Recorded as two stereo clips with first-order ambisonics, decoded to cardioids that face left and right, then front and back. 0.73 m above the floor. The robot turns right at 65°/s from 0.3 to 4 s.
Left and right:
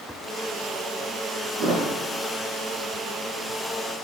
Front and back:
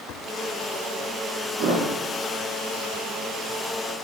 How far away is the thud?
About 3.5 m.